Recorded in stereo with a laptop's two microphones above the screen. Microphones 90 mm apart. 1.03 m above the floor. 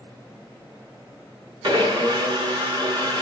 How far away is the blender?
About 1.1 m.